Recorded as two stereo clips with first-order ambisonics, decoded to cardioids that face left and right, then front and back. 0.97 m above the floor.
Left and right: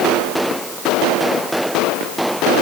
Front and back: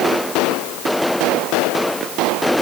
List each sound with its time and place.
Only background noise.